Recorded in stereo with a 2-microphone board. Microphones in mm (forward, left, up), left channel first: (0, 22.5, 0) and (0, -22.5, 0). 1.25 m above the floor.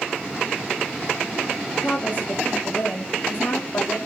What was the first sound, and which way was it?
A woman speaking, 35° left (ahead or behind).